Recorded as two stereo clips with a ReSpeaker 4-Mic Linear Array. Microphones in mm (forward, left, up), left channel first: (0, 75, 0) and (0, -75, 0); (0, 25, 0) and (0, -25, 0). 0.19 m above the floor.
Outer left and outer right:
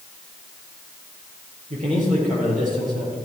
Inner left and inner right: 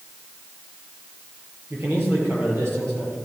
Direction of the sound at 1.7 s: 55° right (ahead or behind).